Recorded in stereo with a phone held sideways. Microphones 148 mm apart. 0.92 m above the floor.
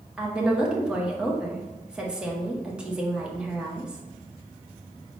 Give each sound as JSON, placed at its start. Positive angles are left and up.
{"t": 0.2, "sound": "a woman speaking", "side_deg": -5, "distance_m": 0.7}